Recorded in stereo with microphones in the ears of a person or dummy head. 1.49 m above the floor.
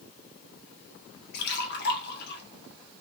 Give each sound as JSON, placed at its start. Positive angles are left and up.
{"t": 1.3, "sound": "a splash", "side_deg": 60, "distance_m": 0.9}